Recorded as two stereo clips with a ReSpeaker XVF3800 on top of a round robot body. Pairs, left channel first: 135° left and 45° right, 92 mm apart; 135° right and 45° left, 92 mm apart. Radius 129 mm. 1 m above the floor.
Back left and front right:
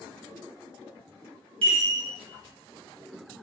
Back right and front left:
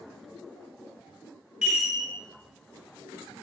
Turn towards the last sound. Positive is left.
turn(degrees=-35)